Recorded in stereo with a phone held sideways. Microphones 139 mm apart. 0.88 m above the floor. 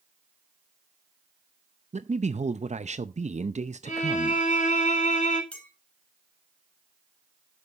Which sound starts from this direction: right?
A man speaking, at 1.9 s.